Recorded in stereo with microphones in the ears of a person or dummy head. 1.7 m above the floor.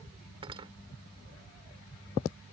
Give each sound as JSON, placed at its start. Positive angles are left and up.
{"t": 0.4, "sound": "cutlery clinking", "side_deg": -30}